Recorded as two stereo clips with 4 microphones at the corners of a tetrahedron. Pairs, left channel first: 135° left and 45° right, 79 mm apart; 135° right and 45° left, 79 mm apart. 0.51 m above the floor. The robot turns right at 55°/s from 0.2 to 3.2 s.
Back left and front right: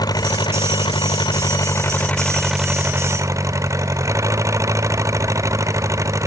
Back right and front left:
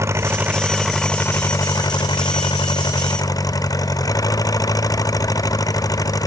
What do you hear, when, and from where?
0.0 s an engine running: 100° left; by 6.3 s 95° right